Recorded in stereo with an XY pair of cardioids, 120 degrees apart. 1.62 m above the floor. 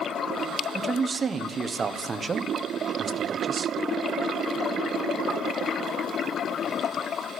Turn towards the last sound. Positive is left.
turn(degrees=-30)